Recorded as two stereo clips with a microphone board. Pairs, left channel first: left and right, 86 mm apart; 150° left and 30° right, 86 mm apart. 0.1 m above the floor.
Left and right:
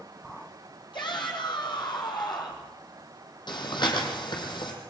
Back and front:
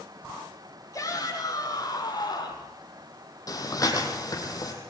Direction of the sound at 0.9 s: 105° left.